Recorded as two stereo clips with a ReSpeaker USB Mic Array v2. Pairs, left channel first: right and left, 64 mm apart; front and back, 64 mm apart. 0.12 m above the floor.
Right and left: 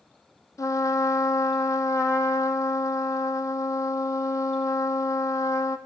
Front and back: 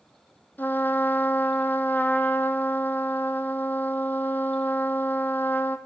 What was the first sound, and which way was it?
A trumpet, 60° right.